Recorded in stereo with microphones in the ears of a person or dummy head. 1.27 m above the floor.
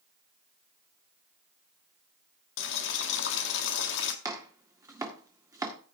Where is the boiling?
60° left (ahead or behind), 1.3 m.